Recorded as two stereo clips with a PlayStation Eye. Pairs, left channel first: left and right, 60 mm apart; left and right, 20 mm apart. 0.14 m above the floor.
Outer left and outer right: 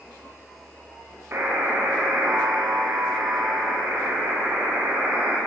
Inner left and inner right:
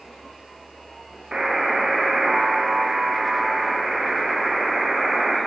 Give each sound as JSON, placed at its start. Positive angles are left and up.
{"t": 1.3, "sound": "a buzzer", "side_deg": -40, "distance_m": 8.5}